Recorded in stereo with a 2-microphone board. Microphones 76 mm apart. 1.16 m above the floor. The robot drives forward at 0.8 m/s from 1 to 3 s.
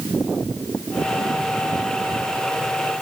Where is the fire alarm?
I don't hear a fire alarm.